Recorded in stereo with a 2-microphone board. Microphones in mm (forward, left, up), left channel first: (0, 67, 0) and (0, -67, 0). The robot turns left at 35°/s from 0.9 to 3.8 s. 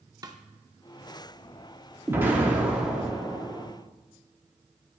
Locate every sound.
0.2 s a snare drum: 30° right (ahead or behind), 0.6 m
2.1 s an explosion: 15° right (ahead or behind), 1.3 m; by 3.7 s 5° left (ahead or behind), 1.3 m